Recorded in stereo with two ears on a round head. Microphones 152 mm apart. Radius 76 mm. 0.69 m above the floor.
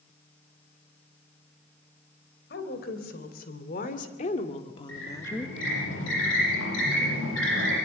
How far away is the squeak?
About 9 m.